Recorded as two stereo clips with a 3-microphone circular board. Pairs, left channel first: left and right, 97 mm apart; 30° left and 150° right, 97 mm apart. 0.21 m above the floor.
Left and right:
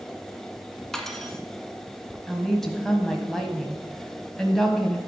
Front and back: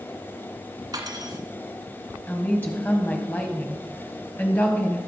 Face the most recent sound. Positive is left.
turn(degrees=10)